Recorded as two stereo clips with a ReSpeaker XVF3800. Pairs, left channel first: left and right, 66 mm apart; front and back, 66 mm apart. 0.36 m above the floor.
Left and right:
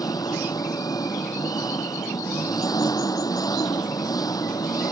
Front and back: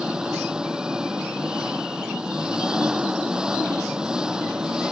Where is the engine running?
105° left.